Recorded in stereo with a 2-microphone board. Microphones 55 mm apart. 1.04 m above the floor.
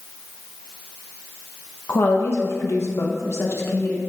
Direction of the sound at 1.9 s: 55° left (ahead or behind).